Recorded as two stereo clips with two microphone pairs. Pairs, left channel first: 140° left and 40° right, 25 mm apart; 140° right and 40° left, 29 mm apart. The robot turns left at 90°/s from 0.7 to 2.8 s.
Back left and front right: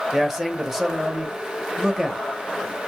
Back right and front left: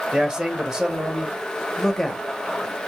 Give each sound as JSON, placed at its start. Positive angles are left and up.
{"t": 0.1, "sound": "a man speaking", "azimuth_deg": 35, "distance_m": 0.9}